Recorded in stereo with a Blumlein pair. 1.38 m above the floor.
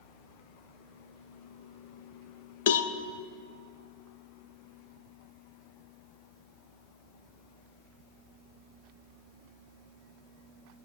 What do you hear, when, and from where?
2.7 s a cowbell: 55° left, 0.7 m